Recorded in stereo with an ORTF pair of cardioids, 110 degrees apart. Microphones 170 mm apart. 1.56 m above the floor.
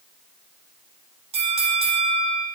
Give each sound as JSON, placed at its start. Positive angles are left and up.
{"t": 1.3, "sound": "a bell", "azimuth_deg": -35, "distance_m": 1.5}